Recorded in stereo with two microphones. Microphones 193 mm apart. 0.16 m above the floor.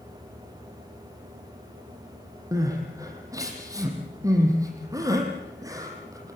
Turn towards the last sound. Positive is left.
turn(degrees=-15)  # may be behind; listen again after turning